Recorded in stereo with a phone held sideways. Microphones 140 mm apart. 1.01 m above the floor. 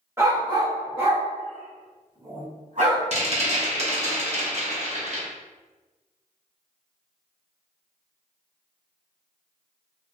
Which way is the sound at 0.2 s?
20° right (ahead or behind).